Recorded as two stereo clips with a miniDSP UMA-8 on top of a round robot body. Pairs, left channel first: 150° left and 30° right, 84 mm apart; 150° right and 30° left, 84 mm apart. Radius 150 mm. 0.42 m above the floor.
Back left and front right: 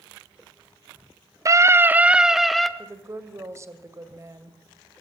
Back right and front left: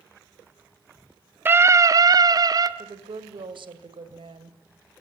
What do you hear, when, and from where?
1.4 s a scream: 20° right, 1.1 m; by 2.7 s 65° left, 1.7 m
2.8 s a woman speaking: 25° left, 2.5 m